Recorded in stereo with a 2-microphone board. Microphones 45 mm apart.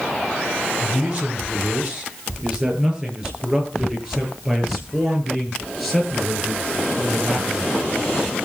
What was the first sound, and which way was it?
A man speaking, 30° right (ahead or behind).